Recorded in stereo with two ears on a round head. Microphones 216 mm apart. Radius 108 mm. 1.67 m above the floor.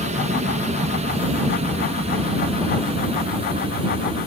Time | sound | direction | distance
0.0 | an aircraft | 30° right (ahead or behind) | ?